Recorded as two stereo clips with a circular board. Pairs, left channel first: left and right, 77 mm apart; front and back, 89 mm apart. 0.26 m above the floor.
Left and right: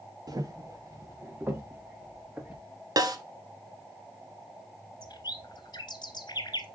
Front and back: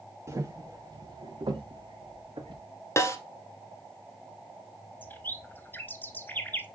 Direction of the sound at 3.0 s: 60° right.